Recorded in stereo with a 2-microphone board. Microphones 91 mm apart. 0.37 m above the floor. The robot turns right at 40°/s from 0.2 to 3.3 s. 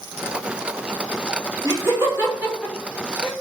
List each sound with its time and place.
1.6 s laughter: 35° right (ahead or behind), 1.6 m; by 3.3 s 5° left (ahead or behind), 1.6 m